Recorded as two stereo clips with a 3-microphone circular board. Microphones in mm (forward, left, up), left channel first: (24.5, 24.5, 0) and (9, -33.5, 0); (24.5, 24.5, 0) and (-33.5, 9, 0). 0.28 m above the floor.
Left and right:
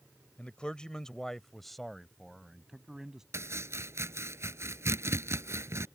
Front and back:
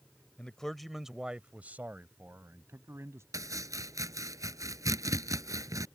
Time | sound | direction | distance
0.4 | a man speaking | 55° left | ?
3.3 | chopping | 145° right | ?